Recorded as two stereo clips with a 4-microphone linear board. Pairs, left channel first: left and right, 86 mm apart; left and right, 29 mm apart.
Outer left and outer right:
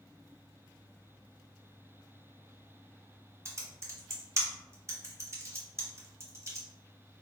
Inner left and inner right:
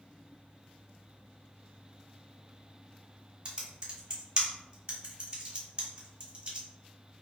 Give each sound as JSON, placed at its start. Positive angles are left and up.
{"t": 3.5, "sound": "typing on a keyboard", "side_deg": -35, "distance_m": 0.9}